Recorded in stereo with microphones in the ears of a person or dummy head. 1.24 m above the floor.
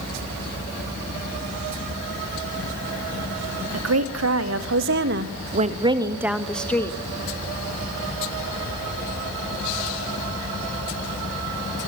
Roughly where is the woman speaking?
Right.